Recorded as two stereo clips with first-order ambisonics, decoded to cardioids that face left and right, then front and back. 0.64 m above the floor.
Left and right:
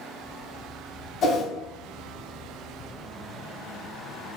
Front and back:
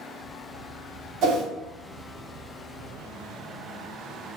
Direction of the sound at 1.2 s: 145° left.